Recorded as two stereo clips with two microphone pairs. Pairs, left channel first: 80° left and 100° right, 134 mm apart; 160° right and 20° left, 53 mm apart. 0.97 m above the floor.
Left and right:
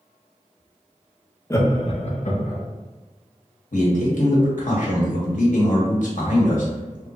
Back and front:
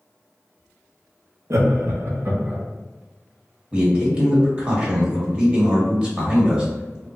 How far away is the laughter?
About 0.7 m.